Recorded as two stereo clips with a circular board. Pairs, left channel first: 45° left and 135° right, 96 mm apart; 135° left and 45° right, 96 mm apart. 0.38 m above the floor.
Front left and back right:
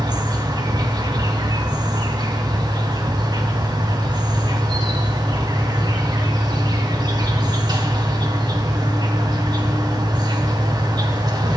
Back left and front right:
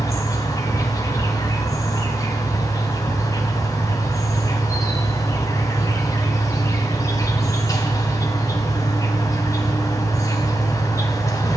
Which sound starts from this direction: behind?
An insect, at 0.0 s.